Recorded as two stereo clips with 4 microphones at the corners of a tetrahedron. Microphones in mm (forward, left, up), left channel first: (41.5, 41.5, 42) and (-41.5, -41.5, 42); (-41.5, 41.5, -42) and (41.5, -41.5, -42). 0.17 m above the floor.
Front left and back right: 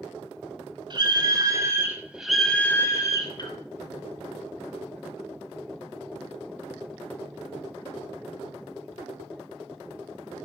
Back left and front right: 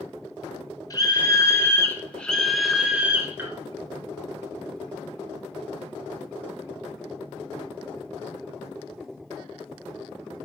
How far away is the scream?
About 1.9 m.